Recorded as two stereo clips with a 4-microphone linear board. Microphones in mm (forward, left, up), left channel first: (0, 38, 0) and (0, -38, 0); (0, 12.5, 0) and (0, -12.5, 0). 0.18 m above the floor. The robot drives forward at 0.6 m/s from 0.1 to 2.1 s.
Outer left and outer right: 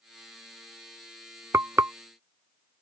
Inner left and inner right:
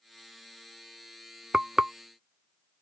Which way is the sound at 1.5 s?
40° right (ahead or behind).